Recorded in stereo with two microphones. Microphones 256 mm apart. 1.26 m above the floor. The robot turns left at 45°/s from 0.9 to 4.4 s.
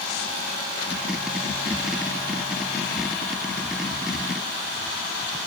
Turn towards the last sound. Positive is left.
No sound to turn to.